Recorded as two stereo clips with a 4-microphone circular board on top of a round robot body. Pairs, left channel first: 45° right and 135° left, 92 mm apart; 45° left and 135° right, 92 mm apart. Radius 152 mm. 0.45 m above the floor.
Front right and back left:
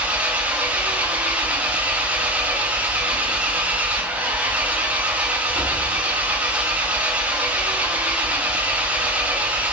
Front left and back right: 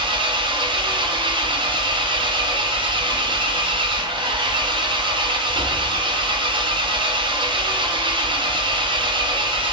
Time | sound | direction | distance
0.0 | an engine running | 150° right | 0.8 m